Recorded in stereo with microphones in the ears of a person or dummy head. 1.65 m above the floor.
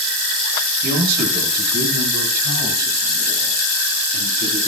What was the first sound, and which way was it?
A man speaking, 60° right (ahead or behind).